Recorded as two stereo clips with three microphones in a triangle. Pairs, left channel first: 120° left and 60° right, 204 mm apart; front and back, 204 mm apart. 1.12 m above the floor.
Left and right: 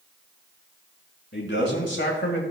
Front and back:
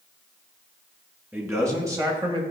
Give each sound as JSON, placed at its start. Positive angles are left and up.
{"t": 1.3, "sound": "a man speaking", "azimuth_deg": 100, "distance_m": 2.5}